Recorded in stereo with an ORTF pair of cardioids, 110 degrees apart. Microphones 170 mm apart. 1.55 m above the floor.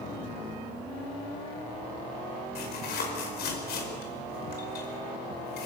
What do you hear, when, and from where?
2.5 s tearing paper: 65° left, 5 m